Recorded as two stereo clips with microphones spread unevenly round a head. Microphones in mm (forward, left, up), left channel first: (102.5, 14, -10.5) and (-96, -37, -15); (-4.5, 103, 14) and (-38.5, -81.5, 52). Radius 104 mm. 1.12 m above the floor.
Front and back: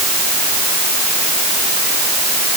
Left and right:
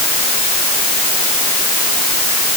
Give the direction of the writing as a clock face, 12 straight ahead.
I don't hear writing.